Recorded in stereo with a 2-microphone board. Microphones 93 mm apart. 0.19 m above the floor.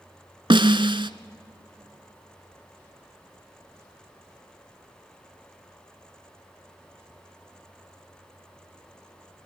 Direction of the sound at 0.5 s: 60° right (ahead or behind).